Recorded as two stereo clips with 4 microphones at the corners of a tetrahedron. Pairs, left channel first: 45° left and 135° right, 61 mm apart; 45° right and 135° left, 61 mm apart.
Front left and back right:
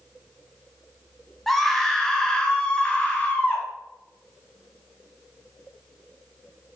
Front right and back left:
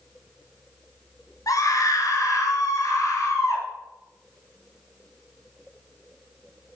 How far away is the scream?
About 3.5 m.